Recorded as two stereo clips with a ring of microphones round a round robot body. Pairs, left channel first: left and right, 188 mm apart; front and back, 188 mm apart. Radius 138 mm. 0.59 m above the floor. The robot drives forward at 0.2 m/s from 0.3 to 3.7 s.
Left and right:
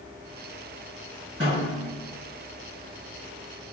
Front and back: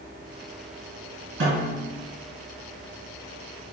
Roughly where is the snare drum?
Behind.